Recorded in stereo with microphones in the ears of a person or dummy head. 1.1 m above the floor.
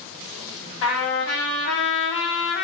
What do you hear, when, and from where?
0.8 s a trumpet: 65° left (ahead or behind), 1.3 m